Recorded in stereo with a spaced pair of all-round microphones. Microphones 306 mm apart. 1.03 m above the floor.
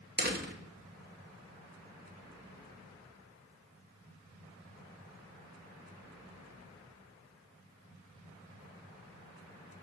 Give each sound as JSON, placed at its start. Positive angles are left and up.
{"t": 0.2, "sound": "a door slam", "side_deg": -35, "distance_m": 1.2}